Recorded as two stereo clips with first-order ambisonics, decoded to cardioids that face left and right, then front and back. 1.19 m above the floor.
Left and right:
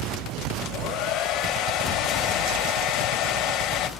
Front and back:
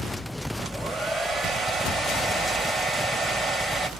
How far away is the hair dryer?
About 1.6 m.